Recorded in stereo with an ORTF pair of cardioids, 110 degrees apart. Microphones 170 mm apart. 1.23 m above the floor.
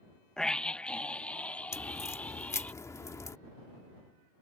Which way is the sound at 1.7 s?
15° left.